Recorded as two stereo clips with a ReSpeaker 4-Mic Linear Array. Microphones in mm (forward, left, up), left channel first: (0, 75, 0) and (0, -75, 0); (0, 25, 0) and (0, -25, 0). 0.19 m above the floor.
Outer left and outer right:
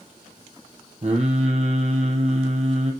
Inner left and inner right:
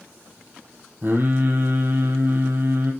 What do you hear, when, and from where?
1.0 s singing: 50° right (ahead or behind), 2.5 m